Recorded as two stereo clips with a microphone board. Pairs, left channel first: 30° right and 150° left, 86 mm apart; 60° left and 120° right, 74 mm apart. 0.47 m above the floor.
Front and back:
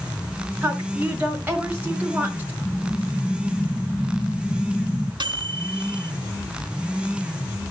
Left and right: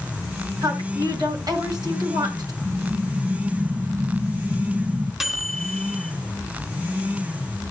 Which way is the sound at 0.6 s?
140° right.